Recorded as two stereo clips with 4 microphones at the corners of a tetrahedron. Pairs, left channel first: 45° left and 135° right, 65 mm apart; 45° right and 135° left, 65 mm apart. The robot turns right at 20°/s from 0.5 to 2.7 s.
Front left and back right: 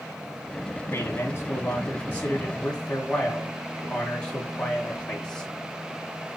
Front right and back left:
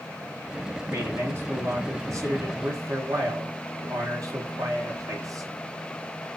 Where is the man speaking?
85° left, 2 m; by 5.5 s 120° left, 2 m.